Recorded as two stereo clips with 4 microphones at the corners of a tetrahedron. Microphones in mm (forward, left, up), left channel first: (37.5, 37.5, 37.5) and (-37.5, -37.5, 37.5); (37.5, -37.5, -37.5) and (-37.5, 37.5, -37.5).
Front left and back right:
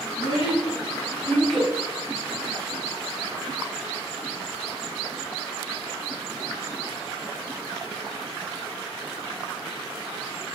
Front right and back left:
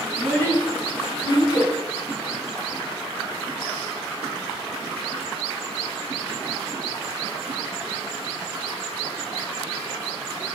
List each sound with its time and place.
0.1 s a child speaking: 25° left, 1.6 m; by 1.7 s 70° right, 0.7 m